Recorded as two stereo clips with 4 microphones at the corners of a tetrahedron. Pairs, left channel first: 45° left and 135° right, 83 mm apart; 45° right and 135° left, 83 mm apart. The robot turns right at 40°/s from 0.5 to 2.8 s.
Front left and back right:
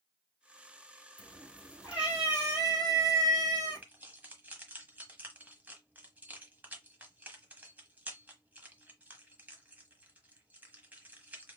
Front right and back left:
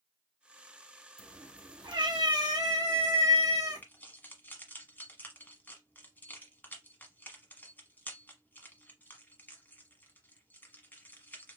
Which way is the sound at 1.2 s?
115° left.